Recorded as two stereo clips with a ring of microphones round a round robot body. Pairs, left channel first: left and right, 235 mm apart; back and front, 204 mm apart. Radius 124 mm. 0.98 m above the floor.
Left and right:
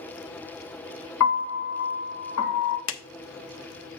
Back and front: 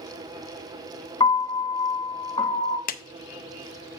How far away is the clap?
About 0.6 m.